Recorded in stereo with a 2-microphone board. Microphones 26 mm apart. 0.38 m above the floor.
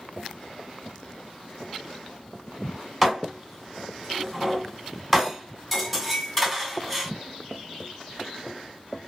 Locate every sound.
3.0 s dishes clattering: centre (ahead or behind), 0.9 m